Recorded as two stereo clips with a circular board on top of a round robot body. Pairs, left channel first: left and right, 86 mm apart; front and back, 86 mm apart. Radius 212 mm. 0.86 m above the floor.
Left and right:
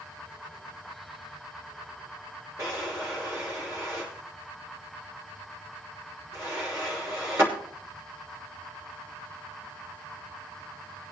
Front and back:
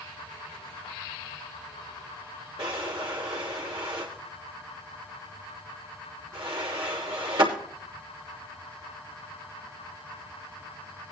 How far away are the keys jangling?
I don't hear keys jangling.